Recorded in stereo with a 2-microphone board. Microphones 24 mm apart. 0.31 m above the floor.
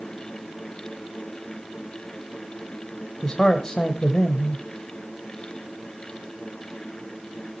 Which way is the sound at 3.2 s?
25° left (ahead or behind).